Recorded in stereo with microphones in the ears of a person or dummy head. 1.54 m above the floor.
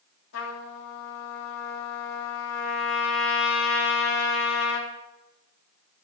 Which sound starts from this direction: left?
A trumpet, at 0.3 s.